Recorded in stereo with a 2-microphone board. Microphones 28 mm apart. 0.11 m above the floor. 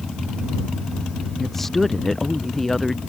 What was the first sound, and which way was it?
A woman speaking, 5° left (ahead or behind).